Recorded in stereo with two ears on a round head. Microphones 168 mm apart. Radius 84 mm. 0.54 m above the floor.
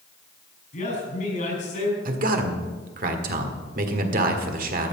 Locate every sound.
0.7 s a man speaking: 45° left (ahead or behind), 6 m
2.0 s a man speaking: 50° right (ahead or behind), 1.6 m